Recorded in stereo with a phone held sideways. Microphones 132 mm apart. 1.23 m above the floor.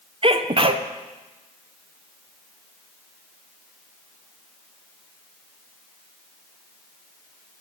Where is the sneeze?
45° right (ahead or behind), 0.5 m.